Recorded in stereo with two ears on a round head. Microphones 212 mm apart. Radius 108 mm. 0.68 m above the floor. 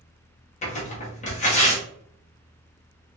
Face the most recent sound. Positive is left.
turn(degrees=30)  # may be behind; listen again after turning